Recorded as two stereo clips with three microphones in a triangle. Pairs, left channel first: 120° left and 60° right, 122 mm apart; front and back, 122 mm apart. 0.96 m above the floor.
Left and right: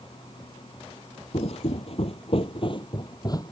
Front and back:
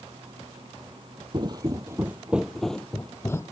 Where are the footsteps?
140° left; by 3.5 s 60° left.